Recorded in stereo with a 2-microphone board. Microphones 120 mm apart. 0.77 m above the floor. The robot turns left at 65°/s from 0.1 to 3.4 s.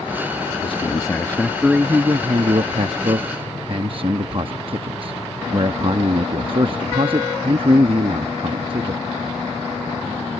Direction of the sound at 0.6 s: 60° left.